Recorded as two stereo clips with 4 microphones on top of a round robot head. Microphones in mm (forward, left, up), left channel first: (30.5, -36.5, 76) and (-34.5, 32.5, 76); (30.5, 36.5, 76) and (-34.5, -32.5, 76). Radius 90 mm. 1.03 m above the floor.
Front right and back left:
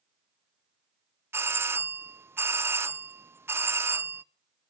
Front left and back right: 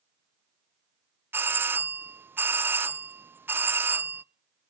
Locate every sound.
1.3 s a doorbell: 175° left, 0.8 m